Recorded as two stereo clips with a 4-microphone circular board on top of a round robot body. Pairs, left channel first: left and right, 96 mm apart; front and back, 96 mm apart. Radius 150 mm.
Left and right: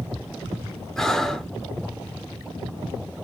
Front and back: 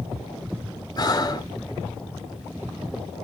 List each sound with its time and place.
1.0 s breathing: 5° left, 1.0 m